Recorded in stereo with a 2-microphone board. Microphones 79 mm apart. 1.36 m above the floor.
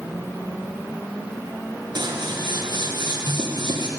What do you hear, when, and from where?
1.9 s scissors: 65° right (ahead or behind), 1.4 m